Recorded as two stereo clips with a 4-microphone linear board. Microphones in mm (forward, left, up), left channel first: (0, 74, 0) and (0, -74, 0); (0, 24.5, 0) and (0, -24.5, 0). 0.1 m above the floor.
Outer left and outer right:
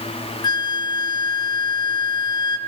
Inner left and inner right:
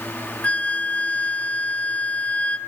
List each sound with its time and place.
0.4 s a flute: 30° left (ahead or behind), 0.5 m